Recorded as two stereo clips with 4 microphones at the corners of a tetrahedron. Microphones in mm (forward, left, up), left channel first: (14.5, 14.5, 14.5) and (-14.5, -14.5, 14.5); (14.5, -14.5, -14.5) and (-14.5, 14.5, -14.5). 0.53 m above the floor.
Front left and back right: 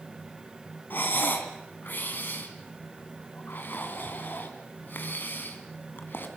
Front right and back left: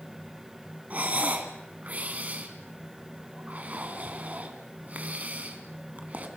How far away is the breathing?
About 2.5 m.